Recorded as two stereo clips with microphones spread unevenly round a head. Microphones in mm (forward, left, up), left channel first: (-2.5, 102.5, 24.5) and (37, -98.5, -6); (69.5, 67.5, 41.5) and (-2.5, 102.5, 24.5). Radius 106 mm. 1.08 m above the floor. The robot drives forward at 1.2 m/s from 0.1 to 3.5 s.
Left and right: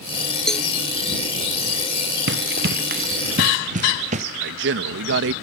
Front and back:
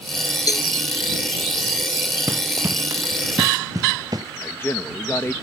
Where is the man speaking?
100° right.